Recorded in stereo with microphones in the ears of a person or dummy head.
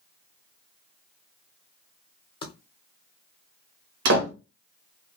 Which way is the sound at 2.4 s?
30° left (ahead or behind).